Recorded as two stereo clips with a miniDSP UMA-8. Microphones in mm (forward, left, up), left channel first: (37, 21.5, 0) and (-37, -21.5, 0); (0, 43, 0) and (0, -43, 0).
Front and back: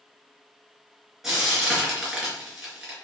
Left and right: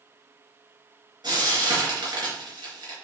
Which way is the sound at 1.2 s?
65° right.